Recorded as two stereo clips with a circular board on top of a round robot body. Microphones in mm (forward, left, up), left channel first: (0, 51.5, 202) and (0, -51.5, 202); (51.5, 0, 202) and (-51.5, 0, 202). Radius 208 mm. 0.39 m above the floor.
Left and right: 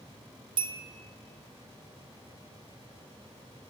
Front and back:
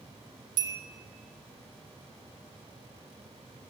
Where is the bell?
130° right, 1.1 m.